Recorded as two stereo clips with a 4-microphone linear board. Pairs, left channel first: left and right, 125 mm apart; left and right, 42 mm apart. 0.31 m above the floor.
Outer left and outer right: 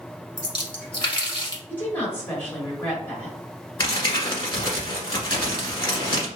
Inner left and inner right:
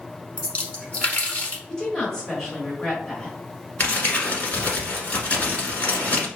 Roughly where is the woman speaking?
Centre.